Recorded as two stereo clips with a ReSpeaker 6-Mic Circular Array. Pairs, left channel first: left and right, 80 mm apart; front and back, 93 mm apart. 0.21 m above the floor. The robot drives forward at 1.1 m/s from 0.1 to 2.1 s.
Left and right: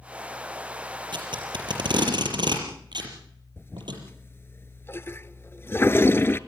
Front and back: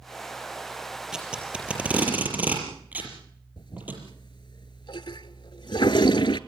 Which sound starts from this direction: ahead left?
A toilet flushing, at 3.6 s.